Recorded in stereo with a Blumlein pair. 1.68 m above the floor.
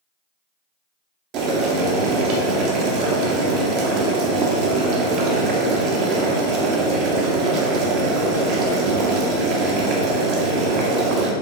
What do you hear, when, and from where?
1.3 s boiling: 40° right, 0.9 m